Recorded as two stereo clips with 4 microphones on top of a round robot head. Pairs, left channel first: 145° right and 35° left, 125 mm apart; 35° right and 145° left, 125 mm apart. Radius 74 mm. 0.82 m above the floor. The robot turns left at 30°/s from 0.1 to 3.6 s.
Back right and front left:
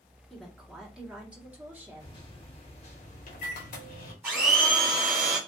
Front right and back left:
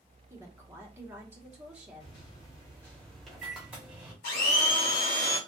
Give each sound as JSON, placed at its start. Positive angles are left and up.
{"t": 0.3, "sound": "a woman speaking", "azimuth_deg": 130, "distance_m": 1.0}
{"t": 2.0, "sound": "a microwave", "azimuth_deg": -85, "distance_m": 1.0}
{"t": 4.2, "sound": "a blender", "azimuth_deg": -40, "distance_m": 1.5}